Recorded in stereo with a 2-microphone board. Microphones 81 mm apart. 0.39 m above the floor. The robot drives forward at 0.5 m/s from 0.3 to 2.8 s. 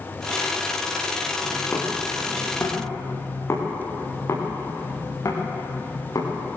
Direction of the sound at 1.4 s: 25° left (ahead or behind).